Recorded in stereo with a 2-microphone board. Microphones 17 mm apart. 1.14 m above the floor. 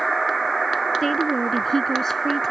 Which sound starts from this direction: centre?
A woman speaking, at 1.0 s.